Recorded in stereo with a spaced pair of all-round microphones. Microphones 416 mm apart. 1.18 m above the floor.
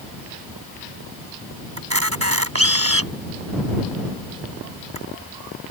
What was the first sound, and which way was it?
A camera shutter, 35° right (ahead or behind).